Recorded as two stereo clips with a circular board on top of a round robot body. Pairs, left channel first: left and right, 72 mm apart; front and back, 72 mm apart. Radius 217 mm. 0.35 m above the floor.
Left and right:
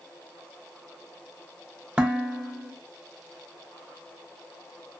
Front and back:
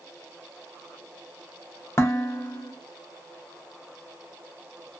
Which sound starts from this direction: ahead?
Dishes clattering, at 2.0 s.